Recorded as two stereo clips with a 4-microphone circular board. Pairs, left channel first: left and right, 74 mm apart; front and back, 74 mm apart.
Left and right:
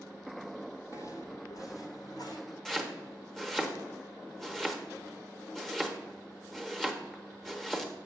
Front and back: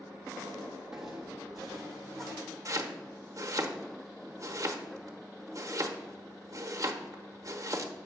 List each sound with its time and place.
0.9 s footsteps: 100° left, 1.3 m; by 2.4 s 90° left, 2.0 m
2.6 s chopping: 170° left, 1.1 m